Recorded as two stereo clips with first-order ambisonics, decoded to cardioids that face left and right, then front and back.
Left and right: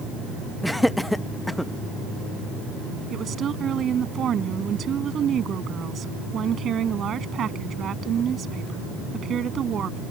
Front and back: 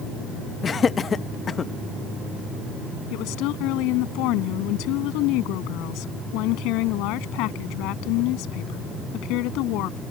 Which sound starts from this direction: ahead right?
A woman speaking, at 3.1 s.